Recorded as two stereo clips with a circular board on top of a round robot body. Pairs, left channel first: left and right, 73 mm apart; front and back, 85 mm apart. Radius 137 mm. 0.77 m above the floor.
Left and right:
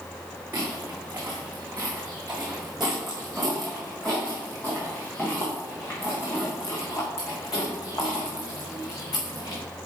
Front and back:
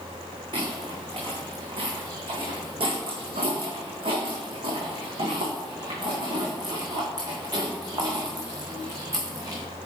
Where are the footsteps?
155° right, 3 m; by 9.6 s 125° left, 4 m.